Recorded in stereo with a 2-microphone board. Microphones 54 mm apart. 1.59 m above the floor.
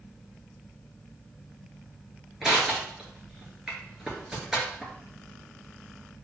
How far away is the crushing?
About 1.8 m.